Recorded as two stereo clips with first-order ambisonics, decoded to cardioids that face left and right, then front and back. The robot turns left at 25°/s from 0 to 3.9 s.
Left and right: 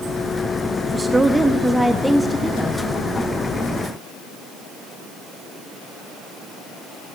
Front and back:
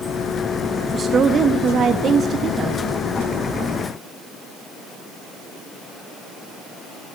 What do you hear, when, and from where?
0.9 s a woman speaking: 150° right, 0.5 m; by 2.8 s 160° left, 0.5 m